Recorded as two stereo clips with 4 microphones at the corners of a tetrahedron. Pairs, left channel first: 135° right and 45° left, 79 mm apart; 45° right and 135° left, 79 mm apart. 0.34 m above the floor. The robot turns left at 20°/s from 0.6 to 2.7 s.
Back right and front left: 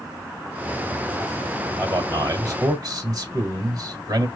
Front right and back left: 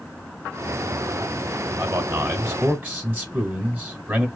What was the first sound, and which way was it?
A man speaking, 95° left.